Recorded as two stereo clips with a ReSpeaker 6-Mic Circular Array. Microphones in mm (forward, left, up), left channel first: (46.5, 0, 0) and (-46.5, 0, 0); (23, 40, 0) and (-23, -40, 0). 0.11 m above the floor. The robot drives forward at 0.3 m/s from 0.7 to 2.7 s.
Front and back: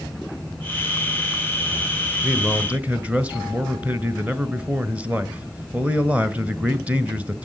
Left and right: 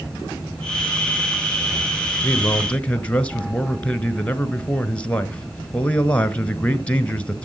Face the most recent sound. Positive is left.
turn(degrees=120)